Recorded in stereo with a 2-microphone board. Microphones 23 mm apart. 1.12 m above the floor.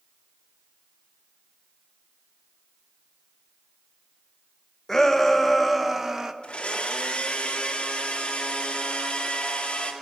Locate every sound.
4.9 s a shout: 15° left (ahead or behind), 1.3 m; by 6.3 s 20° right (ahead or behind), 1.2 m
6.4 s a blender: 45° left (ahead or behind), 2 m